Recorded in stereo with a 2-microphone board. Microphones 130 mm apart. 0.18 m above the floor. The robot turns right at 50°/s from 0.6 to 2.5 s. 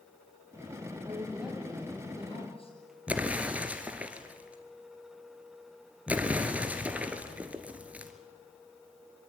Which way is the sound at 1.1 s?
25° right.